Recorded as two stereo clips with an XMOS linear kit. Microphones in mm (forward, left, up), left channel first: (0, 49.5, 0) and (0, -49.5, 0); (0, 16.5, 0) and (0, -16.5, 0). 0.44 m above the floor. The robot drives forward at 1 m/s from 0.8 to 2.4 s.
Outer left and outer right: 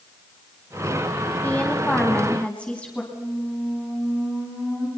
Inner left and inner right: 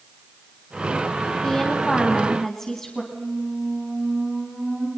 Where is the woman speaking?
15° left (ahead or behind), 3 m; by 3.0 s 10° left (ahead or behind), 4 m.